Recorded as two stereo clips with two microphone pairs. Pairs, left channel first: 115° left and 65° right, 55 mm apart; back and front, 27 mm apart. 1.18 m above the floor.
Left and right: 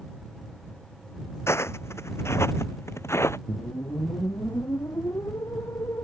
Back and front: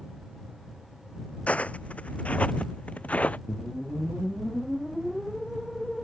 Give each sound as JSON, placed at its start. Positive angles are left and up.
{"t": 1.5, "sound": "footsteps", "azimuth_deg": 150}
{"t": 3.5, "sound": "a whoosh", "azimuth_deg": 95}